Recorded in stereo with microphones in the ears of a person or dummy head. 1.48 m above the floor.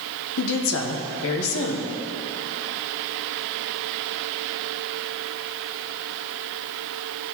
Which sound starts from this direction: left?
A woman speaking, at 0.4 s.